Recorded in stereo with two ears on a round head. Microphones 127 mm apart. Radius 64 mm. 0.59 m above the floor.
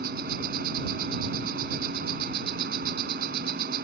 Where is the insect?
80° right.